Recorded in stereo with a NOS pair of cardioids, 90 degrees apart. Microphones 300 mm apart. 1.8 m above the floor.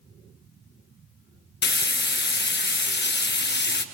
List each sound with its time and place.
1.6 s frying: 40° left, 1.0 m